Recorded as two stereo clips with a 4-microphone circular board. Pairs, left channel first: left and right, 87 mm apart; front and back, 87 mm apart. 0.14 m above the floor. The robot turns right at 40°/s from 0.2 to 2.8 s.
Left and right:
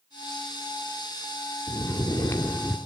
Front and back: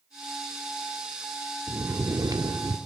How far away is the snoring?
About 2.0 m.